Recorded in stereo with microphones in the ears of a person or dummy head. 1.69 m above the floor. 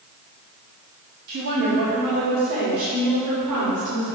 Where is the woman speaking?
55° right (ahead or behind), 3.5 m; by 4.0 s 90° right, 6.5 m.